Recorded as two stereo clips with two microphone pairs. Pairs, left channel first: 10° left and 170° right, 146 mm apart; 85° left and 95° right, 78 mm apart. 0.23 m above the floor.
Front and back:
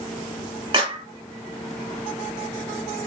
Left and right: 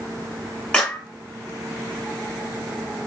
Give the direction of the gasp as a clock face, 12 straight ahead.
I don't hear a gasp.